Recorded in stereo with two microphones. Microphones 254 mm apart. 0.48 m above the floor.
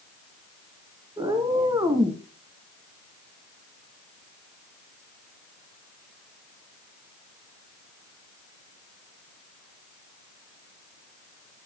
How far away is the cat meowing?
About 1.7 m.